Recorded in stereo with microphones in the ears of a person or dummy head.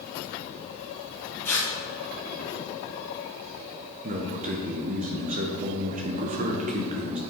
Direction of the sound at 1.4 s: 5° left (ahead or behind).